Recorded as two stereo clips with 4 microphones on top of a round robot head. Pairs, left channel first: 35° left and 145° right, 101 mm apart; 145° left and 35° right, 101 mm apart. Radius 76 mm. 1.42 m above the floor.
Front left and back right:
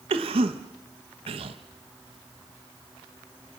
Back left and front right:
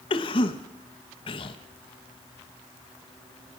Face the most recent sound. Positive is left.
turn(degrees=-175)